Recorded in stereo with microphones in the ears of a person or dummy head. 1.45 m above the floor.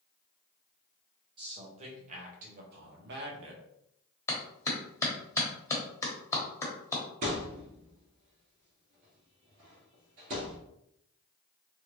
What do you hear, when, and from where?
1.4 s a man speaking: 30° right (ahead or behind), 1.7 m; by 3.6 s 70° right (ahead or behind), 1.4 m
4.3 s a clap: 15° left (ahead or behind), 1.1 m
7.2 s a thud: 45° right (ahead or behind), 2 m